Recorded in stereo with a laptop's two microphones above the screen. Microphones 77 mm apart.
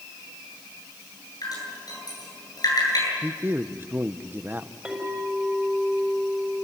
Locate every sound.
1.4 s dripping: 55° left (ahead or behind), 9.5 m
3.2 s a man speaking: 25° right (ahead or behind), 0.8 m
4.8 s a clink: 10° right (ahead or behind), 4.5 m